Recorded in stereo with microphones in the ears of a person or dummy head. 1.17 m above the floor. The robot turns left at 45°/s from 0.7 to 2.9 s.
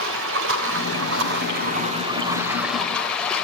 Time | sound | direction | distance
0.0 | running water | 85° right | 3 m